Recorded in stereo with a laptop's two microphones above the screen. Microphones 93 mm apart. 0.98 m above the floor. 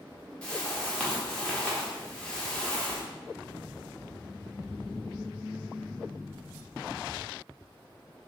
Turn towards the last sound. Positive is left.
turn(degrees=10)  # may be behind; listen again after turning